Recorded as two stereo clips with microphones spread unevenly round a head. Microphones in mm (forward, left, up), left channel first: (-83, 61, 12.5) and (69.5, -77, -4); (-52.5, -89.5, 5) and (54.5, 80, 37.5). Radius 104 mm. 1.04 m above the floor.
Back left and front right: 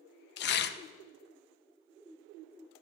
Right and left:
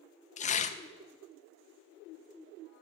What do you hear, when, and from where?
0.4 s tearing paper: straight behind, 0.6 m